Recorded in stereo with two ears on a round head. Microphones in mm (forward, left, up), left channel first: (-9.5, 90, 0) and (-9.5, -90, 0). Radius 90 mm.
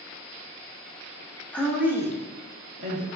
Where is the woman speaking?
10° left (ahead or behind), 0.6 m; by 3.1 s 40° right (ahead or behind), 1.1 m.